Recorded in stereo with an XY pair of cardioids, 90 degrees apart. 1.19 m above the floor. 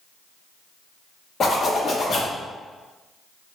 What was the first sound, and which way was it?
A zipper, 55° left.